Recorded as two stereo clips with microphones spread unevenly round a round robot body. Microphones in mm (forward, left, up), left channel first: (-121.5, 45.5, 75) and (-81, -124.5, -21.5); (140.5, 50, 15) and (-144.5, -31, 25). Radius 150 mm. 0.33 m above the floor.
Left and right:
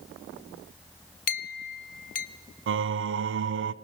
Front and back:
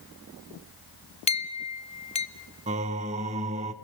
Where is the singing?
95° right, 0.5 m.